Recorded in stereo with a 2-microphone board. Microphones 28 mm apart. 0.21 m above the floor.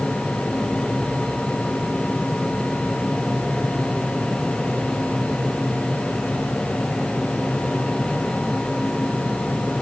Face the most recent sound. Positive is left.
No sound to turn to.